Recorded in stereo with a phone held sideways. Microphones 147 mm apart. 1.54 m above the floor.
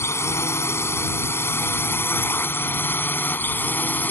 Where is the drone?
15° left (ahead or behind); by 4.1 s 10° left (ahead or behind).